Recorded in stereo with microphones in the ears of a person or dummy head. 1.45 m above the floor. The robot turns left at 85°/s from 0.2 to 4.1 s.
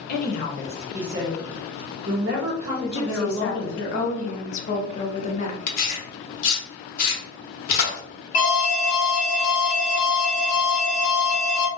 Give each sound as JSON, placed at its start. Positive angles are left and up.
{"t": 0.1, "sound": "a woman speaking", "azimuth_deg": 60, "distance_m": 0.7}
{"t": 2.8, "sound": "a woman speaking", "azimuth_deg": 155, "distance_m": 0.7}
{"t": 5.7, "sound": "tearing paper", "side_deg": 55, "distance_m": 0.9}
{"t": 8.3, "sound": "an alarm", "side_deg": 40, "distance_m": 1.2}